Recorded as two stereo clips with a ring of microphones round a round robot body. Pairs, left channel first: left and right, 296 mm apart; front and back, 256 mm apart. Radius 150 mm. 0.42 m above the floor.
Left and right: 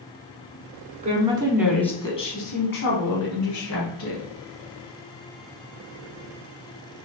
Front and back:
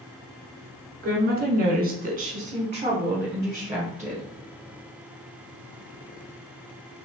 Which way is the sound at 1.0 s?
140° right.